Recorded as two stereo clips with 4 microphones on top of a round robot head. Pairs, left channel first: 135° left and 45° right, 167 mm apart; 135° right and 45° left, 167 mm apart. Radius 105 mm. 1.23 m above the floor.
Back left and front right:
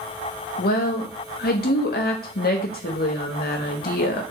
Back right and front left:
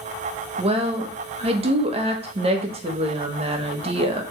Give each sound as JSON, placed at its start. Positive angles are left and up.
{"t": 0.6, "sound": "a woman speaking", "azimuth_deg": 100, "distance_m": 1.5}